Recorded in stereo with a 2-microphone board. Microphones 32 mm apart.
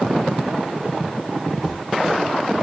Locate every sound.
1.6 s a squeak: 5° right (ahead or behind), 3.5 m